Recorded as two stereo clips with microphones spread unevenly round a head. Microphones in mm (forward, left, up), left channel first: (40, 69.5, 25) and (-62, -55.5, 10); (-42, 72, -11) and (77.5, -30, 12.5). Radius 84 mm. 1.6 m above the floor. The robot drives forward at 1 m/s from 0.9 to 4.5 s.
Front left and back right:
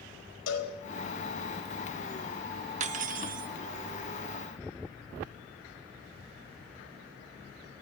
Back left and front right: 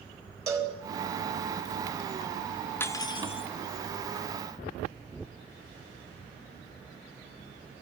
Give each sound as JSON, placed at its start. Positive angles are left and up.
{"t": 0.5, "sound": "a cowbell", "azimuth_deg": 30, "distance_m": 4.5}
{"t": 2.8, "sound": "cutlery clinking", "azimuth_deg": -140, "distance_m": 0.9}